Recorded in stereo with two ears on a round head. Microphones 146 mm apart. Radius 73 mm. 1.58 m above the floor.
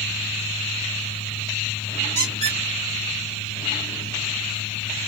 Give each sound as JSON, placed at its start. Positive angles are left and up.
{"t": 2.1, "sound": "a squeak", "side_deg": -40, "distance_m": 1.8}